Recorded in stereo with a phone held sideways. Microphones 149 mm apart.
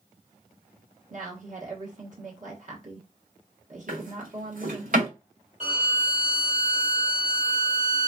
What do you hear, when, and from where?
1.1 s a woman speaking: 55° right (ahead or behind), 1.3 m
3.9 s a drawer: 60° right (ahead or behind), 1.6 m
5.6 s a violin: 55° right (ahead or behind), 2.0 m